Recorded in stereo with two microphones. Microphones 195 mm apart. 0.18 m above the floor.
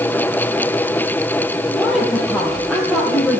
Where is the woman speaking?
Centre (ahead or behind), 4.5 m.